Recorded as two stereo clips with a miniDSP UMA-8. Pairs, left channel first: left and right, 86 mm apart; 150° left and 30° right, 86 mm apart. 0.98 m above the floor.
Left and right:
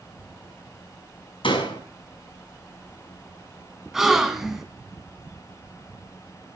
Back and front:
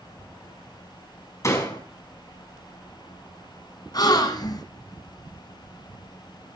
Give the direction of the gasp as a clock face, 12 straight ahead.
6 o'clock.